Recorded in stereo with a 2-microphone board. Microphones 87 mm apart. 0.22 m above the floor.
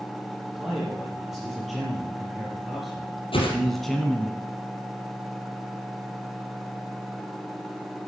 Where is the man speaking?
5° right (ahead or behind), 6 m; by 4.3 s 5° left (ahead or behind), 1.2 m.